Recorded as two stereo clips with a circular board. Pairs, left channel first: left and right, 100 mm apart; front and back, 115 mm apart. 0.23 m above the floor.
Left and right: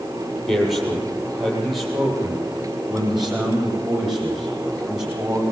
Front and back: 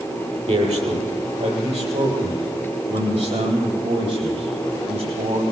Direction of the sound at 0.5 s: Straight behind.